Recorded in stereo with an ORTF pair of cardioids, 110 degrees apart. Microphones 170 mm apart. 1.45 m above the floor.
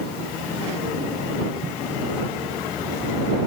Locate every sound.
1.6 s footsteps: 30° right